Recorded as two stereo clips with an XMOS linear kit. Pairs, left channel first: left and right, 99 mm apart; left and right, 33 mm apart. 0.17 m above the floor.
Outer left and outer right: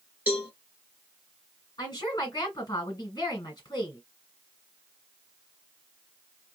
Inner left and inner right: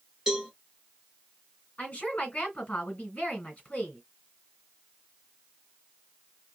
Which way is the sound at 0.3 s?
15° right (ahead or behind).